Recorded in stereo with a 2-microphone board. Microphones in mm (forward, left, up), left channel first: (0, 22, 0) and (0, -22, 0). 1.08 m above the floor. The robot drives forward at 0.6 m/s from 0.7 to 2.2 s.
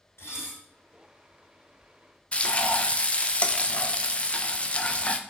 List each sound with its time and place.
0.2 s dishes clattering: 85° left, 3 m
2.3 s frying: 25° left (ahead or behind), 0.5 m